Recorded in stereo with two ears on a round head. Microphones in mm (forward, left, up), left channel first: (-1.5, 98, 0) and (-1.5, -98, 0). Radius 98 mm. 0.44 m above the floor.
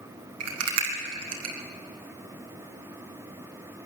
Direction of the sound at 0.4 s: 80° right.